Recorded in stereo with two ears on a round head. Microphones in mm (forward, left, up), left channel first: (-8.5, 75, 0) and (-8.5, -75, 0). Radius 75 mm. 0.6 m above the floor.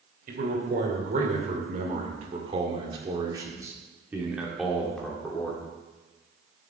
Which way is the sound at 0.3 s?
55° right (ahead or behind).